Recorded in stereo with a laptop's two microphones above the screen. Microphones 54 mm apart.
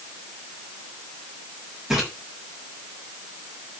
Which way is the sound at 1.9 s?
10° right (ahead or behind).